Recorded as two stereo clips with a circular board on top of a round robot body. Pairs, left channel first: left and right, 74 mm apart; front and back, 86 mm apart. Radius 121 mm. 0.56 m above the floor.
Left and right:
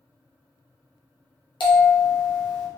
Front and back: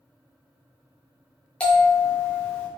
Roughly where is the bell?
Left.